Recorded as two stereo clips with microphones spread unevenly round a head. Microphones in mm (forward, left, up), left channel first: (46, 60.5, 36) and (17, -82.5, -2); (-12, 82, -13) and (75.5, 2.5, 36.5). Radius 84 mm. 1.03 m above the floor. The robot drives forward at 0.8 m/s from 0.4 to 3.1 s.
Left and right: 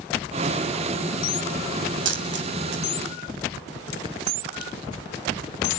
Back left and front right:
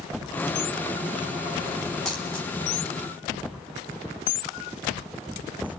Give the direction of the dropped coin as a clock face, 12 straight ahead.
4 o'clock.